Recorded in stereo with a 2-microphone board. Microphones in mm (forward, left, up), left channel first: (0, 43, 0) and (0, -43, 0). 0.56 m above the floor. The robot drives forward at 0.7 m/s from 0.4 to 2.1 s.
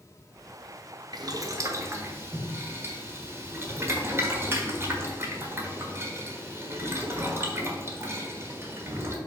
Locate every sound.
1.1 s boiling: 50° right (ahead or behind), 0.7 m; by 9.2 s 30° right (ahead or behind), 1.1 m